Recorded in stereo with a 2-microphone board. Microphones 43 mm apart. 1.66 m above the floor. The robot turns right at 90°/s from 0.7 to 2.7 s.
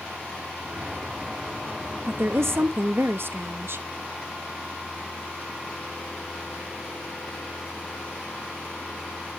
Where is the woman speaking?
125° right, 0.7 m; by 3.8 s 70° right, 0.7 m.